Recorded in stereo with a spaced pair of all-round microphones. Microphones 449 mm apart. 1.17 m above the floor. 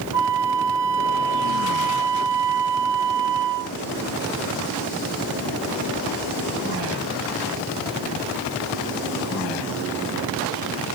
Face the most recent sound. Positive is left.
turn(degrees=-65)  # may be behind; listen again after turning